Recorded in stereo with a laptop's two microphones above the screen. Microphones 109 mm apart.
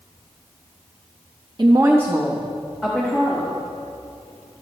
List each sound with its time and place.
1.6 s a woman speaking: 45° right (ahead or behind), 0.6 m; by 3.6 s 5° left (ahead or behind), 1.9 m